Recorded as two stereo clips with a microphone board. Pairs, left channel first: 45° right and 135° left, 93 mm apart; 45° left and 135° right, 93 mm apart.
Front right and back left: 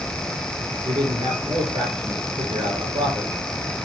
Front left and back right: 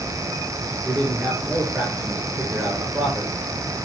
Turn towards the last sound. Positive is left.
turn(degrees=155)